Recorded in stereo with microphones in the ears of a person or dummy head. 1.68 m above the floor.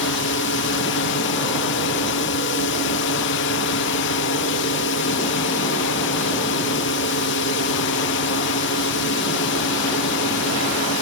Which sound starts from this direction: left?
A drone, at 0.0 s.